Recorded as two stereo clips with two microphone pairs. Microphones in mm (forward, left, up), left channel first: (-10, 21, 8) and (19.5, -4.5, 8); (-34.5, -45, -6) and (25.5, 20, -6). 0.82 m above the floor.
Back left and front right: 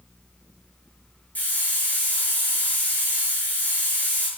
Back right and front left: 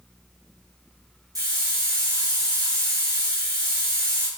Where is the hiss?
95° left, 6 m.